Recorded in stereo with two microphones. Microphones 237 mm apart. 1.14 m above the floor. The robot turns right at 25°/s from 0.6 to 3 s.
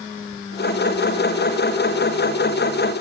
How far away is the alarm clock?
No alarm clock in this recording.